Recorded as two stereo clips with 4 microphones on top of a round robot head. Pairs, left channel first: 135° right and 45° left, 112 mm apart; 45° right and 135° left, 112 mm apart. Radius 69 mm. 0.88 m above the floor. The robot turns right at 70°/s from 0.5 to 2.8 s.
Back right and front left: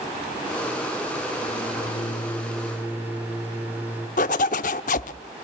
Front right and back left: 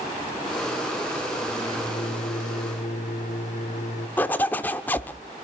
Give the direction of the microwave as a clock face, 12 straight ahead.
4 o'clock.